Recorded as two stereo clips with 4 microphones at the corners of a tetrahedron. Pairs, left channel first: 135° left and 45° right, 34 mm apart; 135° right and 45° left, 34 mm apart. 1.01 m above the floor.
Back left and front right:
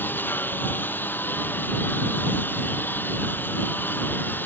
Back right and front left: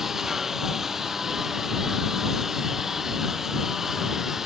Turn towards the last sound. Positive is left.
turn(degrees=120)